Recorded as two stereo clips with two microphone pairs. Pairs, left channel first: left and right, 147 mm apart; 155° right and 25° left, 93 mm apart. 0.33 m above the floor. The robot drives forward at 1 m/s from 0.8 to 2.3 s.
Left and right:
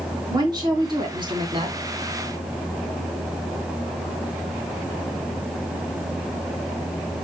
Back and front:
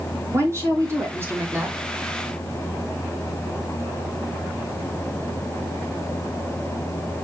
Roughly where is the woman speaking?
Ahead right.